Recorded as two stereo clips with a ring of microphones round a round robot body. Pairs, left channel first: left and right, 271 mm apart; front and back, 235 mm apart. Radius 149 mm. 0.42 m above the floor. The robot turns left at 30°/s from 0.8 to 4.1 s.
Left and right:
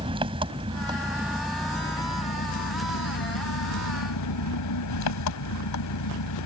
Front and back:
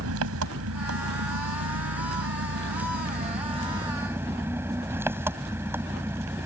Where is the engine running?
160° right; by 6.5 s 100° left.